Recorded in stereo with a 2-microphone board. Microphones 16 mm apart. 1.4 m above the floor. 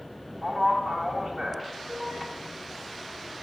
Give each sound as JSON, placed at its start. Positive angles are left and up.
{"t": 0.4, "sound": "a man speaking", "side_deg": -60, "distance_m": 1.0}